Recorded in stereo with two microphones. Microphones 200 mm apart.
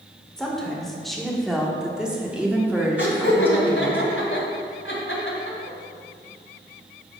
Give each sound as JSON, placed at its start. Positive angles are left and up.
{"t": 0.4, "sound": "a woman speaking", "side_deg": 5, "distance_m": 1.9}
{"t": 3.0, "sound": "laughter", "side_deg": 75, "distance_m": 3.0}